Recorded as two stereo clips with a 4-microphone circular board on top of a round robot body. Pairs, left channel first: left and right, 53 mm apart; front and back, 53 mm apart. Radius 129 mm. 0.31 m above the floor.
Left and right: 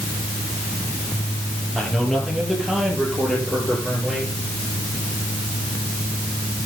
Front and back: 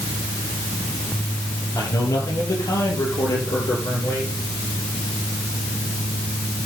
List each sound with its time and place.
1.8 s a man speaking: 5° right, 9 m